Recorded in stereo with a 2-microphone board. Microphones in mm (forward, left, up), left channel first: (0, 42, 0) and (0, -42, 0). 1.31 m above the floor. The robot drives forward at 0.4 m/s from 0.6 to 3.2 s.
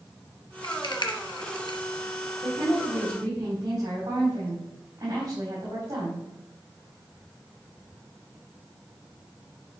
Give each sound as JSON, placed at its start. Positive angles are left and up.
{"t": 0.6, "sound": "a rattle", "side_deg": 65, "distance_m": 1.1}
{"t": 2.4, "sound": "a woman speaking", "side_deg": -55, "distance_m": 4.0}